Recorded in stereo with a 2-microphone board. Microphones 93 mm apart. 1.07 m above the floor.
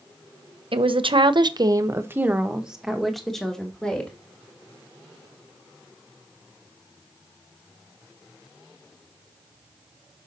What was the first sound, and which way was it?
A woman speaking, 70° right (ahead or behind).